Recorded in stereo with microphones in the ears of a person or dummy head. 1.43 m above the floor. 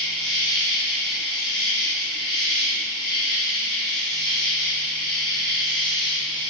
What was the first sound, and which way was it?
An insect, 20° left (ahead or behind).